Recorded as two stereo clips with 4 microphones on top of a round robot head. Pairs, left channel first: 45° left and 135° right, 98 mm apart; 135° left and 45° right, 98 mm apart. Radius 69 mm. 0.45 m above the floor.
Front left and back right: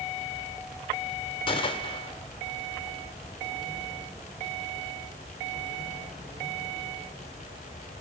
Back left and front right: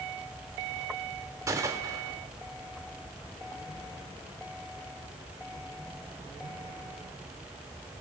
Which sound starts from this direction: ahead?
A gunshot, at 1.5 s.